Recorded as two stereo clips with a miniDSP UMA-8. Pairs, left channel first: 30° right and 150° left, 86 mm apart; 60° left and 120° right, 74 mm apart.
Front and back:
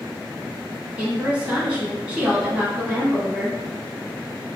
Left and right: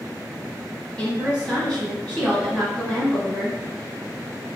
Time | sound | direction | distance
1.0 | a woman speaking | 100° left | 1.0 m